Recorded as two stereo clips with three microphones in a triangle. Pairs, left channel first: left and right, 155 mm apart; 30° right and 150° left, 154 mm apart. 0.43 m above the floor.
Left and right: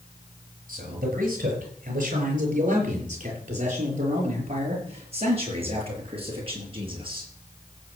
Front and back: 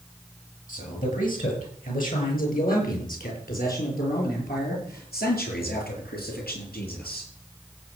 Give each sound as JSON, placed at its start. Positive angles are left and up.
{"t": 0.7, "sound": "a man speaking", "azimuth_deg": -65, "distance_m": 7.0}